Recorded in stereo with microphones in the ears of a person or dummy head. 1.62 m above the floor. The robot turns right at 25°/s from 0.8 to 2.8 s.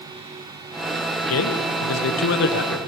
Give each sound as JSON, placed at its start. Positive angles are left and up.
{"t": 1.2, "sound": "a man speaking", "azimuth_deg": 80, "distance_m": 1.3}